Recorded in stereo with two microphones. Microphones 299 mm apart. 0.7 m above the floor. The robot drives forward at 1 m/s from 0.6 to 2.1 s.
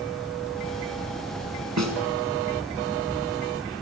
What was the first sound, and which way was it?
A snare drum, 65° right (ahead or behind).